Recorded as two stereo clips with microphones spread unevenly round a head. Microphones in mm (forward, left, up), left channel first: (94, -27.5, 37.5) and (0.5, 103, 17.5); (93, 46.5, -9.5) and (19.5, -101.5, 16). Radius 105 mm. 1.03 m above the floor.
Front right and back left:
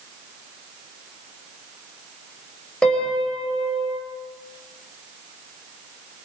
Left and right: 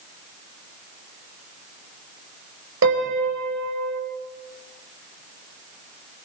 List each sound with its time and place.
2.8 s a piano: 140° right, 5 m